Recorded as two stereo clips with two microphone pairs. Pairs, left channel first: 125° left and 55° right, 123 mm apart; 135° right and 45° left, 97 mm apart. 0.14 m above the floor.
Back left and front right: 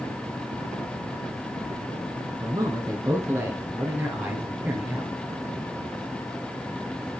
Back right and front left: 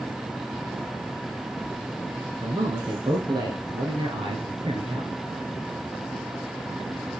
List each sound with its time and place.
2.4 s a man speaking: straight ahead, 2 m; by 5.1 s 25° left, 3 m